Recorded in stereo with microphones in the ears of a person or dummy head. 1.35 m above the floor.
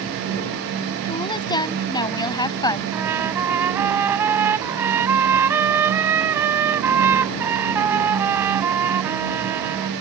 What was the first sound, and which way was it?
A woman speaking, 25° left (ahead or behind).